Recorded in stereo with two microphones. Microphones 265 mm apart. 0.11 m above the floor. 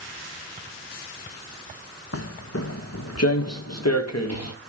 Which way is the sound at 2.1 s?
60° left (ahead or behind).